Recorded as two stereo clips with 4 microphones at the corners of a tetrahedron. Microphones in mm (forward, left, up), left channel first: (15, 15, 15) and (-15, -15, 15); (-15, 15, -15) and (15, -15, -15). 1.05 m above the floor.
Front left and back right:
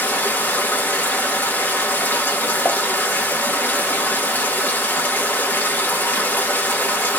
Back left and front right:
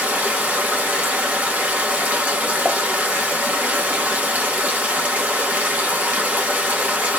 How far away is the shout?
No shout in this recording.